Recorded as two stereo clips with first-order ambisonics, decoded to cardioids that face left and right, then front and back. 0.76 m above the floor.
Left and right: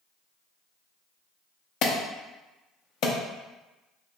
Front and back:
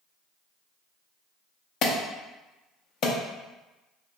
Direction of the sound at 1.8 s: 50° left.